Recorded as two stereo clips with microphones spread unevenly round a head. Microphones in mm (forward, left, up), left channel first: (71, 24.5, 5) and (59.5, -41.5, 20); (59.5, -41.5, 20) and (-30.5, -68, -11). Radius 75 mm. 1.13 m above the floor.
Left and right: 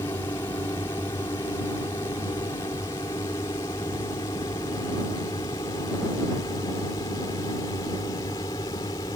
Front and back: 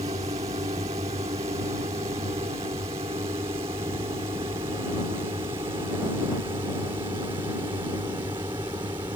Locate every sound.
0.0 s a drone: 145° left; by 9.2 s 130° left